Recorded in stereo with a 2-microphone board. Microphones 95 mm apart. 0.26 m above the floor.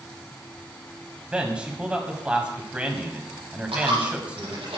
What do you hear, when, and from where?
1.3 s a man speaking: 15° right (ahead or behind), 2.0 m
3.7 s a dropped coin: 85° right, 4.5 m